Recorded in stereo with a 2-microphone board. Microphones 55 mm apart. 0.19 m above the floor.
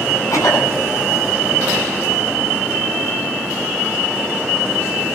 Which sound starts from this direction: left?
A cough, at 0.3 s.